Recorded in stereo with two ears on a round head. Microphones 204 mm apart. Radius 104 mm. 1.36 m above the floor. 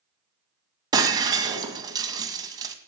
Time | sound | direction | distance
0.9 | breaking glass | 20° right (ahead or behind) | 2 m